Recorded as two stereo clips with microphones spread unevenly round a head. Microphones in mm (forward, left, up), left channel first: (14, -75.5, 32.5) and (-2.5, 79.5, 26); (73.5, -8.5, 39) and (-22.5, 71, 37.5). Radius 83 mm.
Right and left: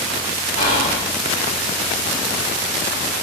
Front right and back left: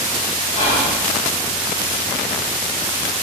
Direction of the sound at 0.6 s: 60° right.